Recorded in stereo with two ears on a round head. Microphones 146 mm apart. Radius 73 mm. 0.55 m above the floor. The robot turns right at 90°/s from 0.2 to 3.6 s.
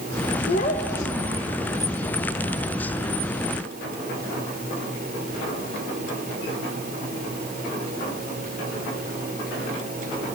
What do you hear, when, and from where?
0.5 s a child speaking: 110° left, 1.6 m; by 1.6 s 145° right, 1.6 m